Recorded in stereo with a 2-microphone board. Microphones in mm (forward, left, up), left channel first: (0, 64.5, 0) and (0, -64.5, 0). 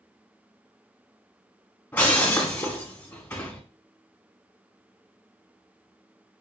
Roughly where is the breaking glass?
Centre.